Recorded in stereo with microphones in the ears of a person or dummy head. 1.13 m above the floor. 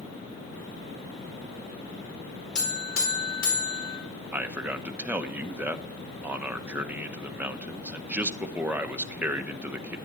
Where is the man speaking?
10° right (ahead or behind), 0.7 m.